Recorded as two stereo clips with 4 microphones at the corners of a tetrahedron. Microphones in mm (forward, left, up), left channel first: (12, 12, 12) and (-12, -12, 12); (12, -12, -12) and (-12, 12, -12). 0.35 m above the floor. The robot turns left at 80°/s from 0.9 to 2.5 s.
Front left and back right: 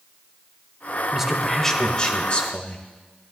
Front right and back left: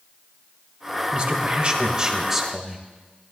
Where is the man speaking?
160° left, 1.3 m; by 2.8 s 50° left, 1.3 m.